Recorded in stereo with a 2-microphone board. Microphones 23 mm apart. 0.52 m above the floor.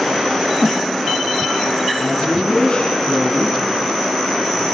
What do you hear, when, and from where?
2.0 s a woman speaking: 40° left (ahead or behind), 4.5 m